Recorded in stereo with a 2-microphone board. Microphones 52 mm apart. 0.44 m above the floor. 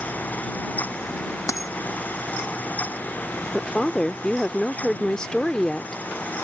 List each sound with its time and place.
1.5 s a dropped coin: 85° left
3.5 s a woman speaking: 15° left (ahead or behind)